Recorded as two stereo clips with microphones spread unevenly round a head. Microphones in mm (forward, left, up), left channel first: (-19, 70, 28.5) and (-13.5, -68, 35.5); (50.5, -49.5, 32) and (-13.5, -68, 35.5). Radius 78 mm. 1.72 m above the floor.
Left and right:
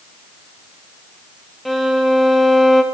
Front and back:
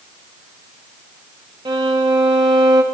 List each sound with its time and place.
1.6 s a violin: 175° right, 0.6 m